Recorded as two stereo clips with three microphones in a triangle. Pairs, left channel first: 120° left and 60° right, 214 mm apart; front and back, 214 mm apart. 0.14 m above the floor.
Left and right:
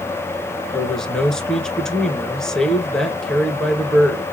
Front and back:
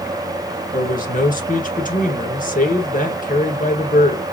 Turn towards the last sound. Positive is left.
turn(degrees=35)